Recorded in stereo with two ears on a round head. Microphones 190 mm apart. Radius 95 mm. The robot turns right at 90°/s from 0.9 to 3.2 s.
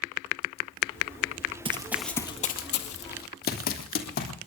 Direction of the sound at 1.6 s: 25° right (ahead or behind).